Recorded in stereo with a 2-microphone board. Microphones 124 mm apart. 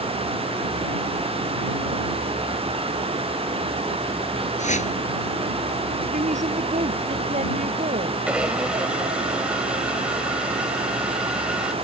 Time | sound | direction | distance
4.6 | a whoosh | 80° left | ?
6.1 | a woman speaking | 75° right (ahead or behind) | ?
8.3 | a blender | 10° right (ahead or behind) | ?